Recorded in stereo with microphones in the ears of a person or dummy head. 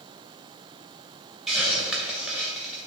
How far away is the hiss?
About 2 m.